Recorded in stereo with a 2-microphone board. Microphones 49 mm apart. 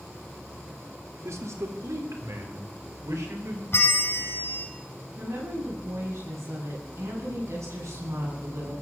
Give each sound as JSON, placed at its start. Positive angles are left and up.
{"t": 1.2, "sound": "a man speaking", "side_deg": -75, "distance_m": 3.0}
{"t": 3.7, "sound": "a bell", "side_deg": 55, "distance_m": 2.5}
{"t": 5.2, "sound": "a woman speaking", "side_deg": -80, "distance_m": 10.0}